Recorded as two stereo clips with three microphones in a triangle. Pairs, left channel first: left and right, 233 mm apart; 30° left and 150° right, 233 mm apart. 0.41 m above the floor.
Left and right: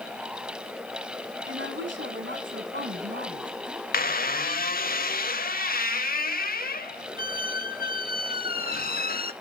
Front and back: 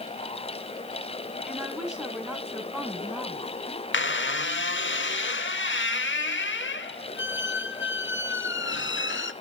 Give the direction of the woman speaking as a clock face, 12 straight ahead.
2 o'clock.